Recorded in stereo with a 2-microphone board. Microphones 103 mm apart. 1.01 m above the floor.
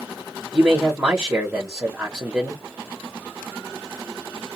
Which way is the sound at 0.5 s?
15° right (ahead or behind).